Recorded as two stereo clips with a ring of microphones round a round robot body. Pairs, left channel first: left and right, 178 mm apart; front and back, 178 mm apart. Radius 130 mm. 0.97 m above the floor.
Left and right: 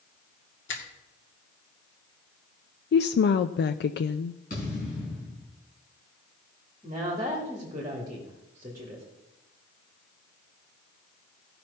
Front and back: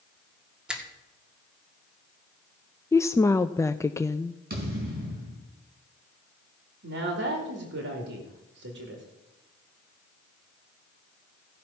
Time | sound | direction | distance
0.7 | a finger snap | 95° left | 2 m
2.9 | a woman speaking | 75° left | 0.5 m
4.5 | a thud | 150° left | 4.5 m
6.8 | a woman speaking | 170° right | 1.9 m